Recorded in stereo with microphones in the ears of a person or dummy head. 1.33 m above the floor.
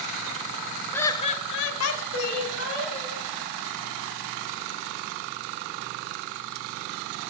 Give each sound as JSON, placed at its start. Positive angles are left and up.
{"t": 0.9, "sound": "laughter", "side_deg": 15, "distance_m": 1.0}